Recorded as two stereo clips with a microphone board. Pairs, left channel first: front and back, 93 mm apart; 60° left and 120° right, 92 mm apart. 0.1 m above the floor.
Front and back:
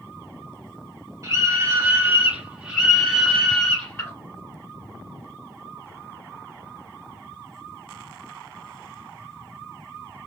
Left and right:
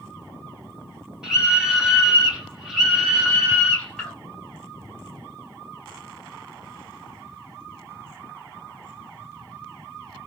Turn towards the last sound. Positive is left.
turn(degrees=-30)